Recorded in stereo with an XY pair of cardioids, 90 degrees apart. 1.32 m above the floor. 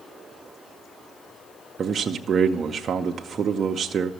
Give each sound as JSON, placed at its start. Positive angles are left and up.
{"t": 1.8, "sound": "a man speaking", "azimuth_deg": -60, "distance_m": 0.6}